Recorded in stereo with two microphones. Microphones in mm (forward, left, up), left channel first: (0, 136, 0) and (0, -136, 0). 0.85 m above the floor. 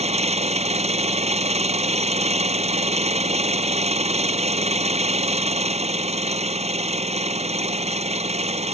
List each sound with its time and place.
0.0 s an engine running: 25° right (ahead or behind)